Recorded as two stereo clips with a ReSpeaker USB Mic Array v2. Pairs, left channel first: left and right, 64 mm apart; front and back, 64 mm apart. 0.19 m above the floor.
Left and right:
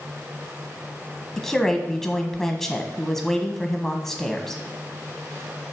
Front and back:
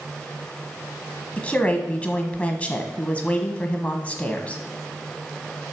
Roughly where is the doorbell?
No doorbell in this recording.